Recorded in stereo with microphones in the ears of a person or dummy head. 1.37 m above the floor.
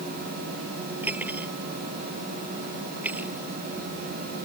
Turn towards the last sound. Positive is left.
turn(degrees=-5)  # may be behind; listen again after turning